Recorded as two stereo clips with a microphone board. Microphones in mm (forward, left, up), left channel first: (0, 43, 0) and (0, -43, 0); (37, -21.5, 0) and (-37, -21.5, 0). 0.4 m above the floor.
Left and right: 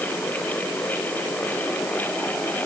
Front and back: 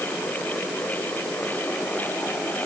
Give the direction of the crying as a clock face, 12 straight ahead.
I don't hear crying.